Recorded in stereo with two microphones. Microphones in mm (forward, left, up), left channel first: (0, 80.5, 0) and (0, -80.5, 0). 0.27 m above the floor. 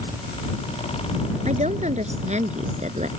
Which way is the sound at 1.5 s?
50° right (ahead or behind).